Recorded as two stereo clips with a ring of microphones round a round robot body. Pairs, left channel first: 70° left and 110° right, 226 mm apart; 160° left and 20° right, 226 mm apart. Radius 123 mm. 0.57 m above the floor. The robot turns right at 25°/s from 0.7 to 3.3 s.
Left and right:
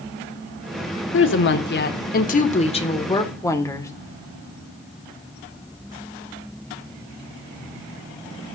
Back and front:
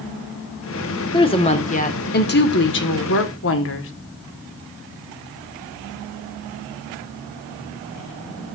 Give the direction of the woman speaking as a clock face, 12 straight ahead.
9 o'clock.